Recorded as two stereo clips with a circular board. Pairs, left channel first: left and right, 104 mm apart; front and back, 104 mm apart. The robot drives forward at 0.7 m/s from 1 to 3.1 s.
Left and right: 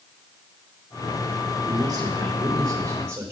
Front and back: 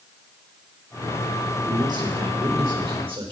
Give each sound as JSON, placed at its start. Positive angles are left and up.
{"t": 1.6, "sound": "a man speaking", "azimuth_deg": -135, "distance_m": 2.0}